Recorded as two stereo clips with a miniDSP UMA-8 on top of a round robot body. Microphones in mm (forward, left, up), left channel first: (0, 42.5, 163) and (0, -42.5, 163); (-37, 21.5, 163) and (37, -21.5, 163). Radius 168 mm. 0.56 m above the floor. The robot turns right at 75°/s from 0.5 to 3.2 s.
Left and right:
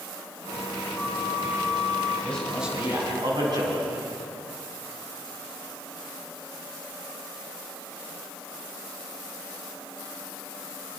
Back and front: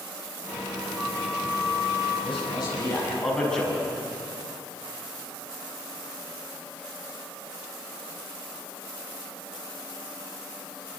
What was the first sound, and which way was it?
A flute, 80° left.